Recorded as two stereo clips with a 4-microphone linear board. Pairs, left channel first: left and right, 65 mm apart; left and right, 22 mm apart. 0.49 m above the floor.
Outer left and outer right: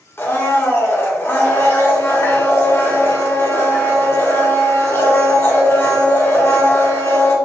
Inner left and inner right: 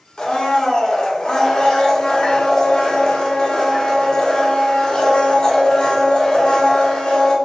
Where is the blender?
40° left (ahead or behind), 1.1 m.